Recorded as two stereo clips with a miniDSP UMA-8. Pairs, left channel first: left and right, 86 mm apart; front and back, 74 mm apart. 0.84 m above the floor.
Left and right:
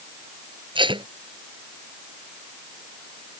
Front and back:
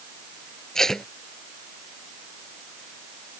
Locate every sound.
0.8 s tape being pulled: 85° right